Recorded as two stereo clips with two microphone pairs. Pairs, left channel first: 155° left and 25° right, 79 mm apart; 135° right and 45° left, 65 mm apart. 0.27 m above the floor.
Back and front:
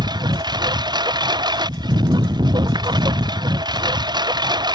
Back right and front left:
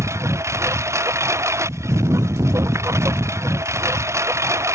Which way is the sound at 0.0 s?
Straight ahead.